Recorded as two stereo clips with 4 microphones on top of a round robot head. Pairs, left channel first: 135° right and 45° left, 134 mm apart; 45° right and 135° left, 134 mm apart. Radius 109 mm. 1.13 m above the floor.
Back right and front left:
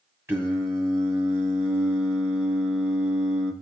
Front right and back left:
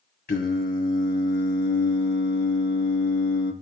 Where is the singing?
30° right, 1.7 m.